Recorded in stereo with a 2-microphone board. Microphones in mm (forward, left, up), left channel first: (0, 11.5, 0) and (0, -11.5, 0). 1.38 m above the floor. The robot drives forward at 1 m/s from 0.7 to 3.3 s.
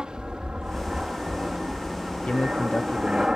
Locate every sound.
0.0 s an aircraft: 35° right (ahead or behind); by 3.4 s 25° right (ahead or behind)
2.3 s a man speaking: 65° left (ahead or behind); by 3.3 s 35° left (ahead or behind)